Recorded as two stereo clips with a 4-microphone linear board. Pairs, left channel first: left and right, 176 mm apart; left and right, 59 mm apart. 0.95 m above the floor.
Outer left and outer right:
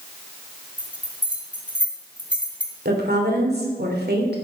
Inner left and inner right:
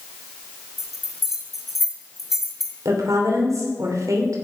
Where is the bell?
5° right (ahead or behind), 1.8 m.